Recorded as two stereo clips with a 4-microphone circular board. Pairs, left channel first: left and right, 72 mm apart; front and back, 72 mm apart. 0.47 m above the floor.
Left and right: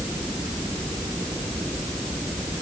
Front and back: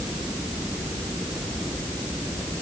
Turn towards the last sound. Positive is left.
No sound to turn to.